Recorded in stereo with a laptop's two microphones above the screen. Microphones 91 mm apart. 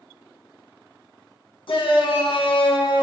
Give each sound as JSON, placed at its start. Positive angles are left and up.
{"t": 1.7, "sound": "a shout", "side_deg": 65, "distance_m": 0.8}